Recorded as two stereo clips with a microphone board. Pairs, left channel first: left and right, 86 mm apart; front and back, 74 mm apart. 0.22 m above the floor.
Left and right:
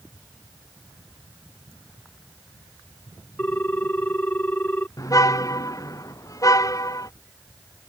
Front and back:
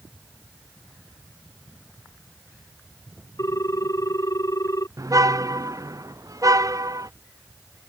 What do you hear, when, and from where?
3.4 s a ringtone: 25° left
5.0 s a car horn: 140° left